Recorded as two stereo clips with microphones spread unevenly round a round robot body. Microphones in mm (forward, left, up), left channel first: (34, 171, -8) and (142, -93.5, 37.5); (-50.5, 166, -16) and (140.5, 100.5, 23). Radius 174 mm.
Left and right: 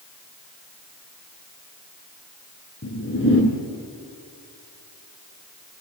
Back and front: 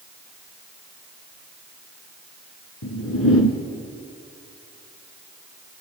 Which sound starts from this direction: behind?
A whoosh, at 2.8 s.